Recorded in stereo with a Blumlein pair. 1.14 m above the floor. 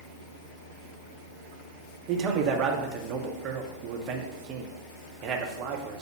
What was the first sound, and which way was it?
A man speaking, 35° right.